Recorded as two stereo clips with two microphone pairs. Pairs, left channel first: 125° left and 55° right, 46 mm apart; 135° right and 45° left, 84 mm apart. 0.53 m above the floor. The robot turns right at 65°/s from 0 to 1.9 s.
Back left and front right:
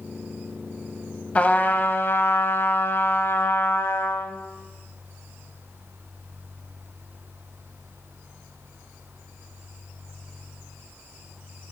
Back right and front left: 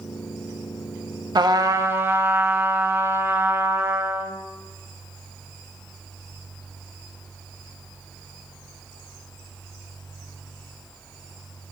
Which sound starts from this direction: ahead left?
A trumpet, at 1.4 s.